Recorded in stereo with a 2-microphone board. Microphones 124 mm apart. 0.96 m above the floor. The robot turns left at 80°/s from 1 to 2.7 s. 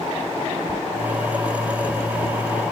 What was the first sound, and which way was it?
A squeak, 25° right (ahead or behind).